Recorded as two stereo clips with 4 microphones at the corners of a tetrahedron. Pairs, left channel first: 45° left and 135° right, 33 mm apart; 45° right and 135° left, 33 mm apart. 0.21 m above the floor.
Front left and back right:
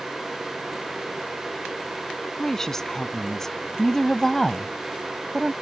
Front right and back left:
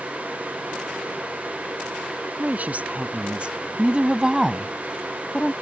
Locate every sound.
2.4 s a woman speaking: 120° left; by 5.5 s 40° right